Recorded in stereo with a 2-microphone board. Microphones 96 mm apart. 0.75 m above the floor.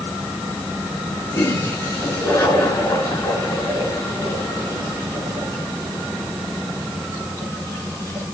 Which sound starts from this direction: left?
A toilet flushing, at 1.3 s.